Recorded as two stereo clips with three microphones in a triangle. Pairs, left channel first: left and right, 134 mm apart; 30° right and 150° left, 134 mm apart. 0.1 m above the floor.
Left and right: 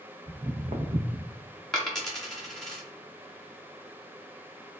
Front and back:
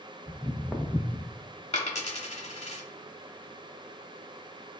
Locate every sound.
0.3 s footsteps: 145° right, 0.6 m; by 1.3 s 90° right, 0.8 m
1.7 s a dropped coin: 5° left, 0.9 m